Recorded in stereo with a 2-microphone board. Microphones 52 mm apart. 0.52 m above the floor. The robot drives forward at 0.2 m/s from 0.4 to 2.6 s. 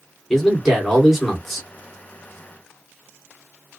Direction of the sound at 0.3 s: 5° left (ahead or behind).